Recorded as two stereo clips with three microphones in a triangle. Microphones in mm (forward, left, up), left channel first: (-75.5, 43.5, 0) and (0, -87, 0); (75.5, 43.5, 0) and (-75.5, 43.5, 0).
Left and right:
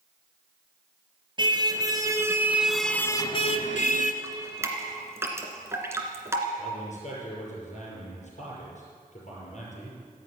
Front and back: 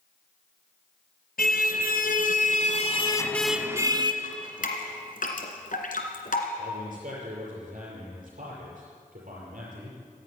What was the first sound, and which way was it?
A car horn, straight ahead.